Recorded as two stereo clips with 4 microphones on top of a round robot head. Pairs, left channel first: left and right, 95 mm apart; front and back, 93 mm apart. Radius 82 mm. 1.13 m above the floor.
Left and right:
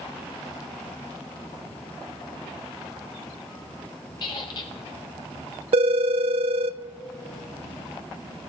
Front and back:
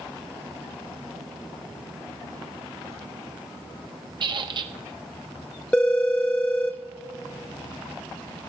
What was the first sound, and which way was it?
A squeak, 150° left.